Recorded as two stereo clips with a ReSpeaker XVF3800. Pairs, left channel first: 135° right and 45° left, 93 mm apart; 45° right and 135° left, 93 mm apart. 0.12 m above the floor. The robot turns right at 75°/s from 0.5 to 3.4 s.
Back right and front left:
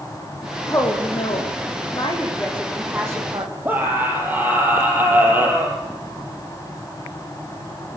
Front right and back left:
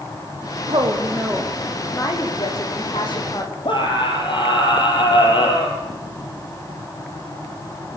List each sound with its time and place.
0.7 s a woman speaking: 160° left, 7 m; by 3.5 s 5° left, 7 m
3.6 s a scream: 25° right, 4 m